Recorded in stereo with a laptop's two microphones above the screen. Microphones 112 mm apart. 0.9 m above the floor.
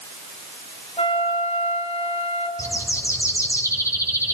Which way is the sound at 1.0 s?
60° left (ahead or behind).